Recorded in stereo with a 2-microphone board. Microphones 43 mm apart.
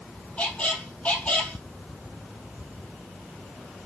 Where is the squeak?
30° left (ahead or behind), 1.6 m.